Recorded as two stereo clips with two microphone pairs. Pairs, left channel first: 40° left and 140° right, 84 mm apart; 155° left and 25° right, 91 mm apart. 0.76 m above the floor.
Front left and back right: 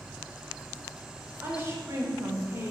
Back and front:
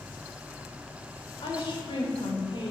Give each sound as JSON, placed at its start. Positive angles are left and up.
{"t": 1.4, "sound": "a woman speaking", "azimuth_deg": 165, "distance_m": 3.0}